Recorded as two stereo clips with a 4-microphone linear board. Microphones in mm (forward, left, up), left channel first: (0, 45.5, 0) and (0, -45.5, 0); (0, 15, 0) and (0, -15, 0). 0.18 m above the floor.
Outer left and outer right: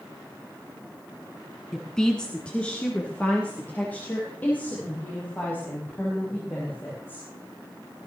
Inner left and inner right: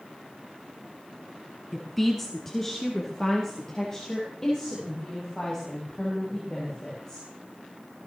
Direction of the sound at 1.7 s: Centre (ahead or behind).